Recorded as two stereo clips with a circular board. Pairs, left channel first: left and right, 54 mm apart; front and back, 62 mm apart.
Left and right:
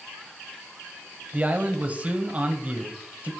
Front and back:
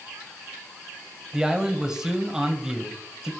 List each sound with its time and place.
1.3 s a man speaking: 110° right, 1.0 m